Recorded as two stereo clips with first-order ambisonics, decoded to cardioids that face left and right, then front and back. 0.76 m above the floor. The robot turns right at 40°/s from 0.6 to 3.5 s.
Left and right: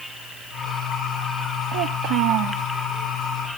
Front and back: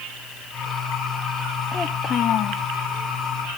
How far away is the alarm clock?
No alarm clock in this recording.